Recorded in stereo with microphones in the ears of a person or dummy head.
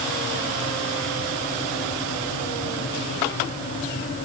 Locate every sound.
Only background noise.